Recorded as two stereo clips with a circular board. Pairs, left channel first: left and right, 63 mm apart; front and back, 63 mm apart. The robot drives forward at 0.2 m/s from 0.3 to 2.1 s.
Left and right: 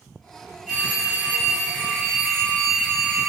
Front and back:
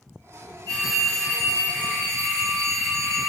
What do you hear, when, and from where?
0.7 s a phone ringing: 165° left, 1.1 m; by 3.3 s 170° left, 1.4 m